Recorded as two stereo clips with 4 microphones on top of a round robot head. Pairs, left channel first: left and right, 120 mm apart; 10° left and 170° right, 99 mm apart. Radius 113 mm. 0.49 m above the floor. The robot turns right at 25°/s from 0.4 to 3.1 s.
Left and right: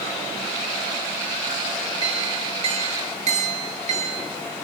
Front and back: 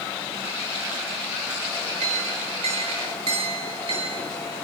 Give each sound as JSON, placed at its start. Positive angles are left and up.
{"t": 2.0, "sound": "a clink", "azimuth_deg": -150, "distance_m": 7.0}